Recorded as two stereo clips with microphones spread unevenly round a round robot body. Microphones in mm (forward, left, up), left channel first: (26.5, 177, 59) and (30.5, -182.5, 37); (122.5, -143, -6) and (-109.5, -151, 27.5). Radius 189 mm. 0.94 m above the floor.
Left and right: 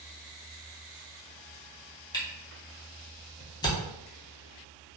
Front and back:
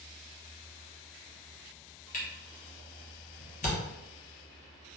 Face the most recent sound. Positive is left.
turn(degrees=15)